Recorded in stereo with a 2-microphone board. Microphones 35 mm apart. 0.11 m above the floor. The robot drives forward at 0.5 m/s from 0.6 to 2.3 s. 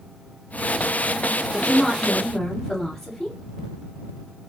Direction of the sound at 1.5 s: 15° left (ahead or behind).